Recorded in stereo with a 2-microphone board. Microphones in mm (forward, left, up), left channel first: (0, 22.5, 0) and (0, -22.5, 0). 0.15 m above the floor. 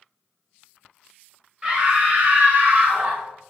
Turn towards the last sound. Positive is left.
turn(degrees=-40)  # may be behind; listen again after turning